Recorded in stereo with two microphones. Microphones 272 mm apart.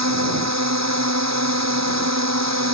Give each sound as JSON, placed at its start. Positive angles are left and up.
{"t": 0.0, "sound": "a drone", "side_deg": -75}